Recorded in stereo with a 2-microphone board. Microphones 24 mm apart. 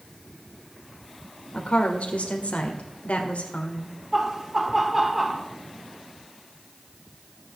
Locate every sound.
1.5 s a woman speaking: 75° left (ahead or behind), 1.8 m
4.1 s laughter: 10° right (ahead or behind), 1.0 m